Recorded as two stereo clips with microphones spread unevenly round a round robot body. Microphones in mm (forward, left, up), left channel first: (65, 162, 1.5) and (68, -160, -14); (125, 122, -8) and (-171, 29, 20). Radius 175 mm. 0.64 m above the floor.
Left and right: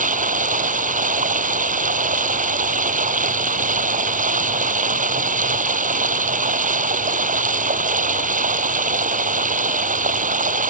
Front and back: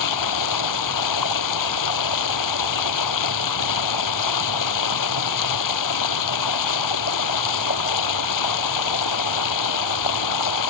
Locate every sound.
0.0 s running water: 25° right